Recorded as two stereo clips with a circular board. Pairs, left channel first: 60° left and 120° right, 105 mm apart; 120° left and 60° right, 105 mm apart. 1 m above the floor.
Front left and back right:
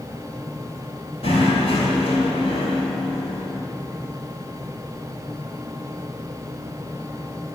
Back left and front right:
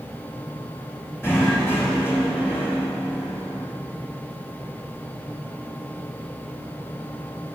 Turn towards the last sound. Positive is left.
turn(degrees=50)